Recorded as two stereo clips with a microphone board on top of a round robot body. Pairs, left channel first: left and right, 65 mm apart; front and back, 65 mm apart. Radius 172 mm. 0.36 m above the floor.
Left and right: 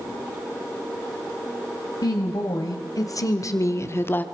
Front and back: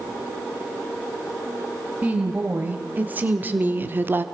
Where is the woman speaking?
115° left, 3.5 m; by 4.2 s 140° left, 1.1 m.